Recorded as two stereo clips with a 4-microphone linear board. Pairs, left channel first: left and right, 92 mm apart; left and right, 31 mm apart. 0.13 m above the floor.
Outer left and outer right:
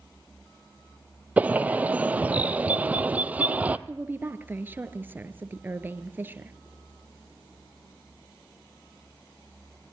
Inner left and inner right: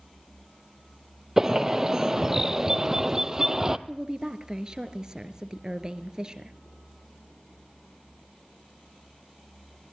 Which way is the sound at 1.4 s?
15° right (ahead or behind).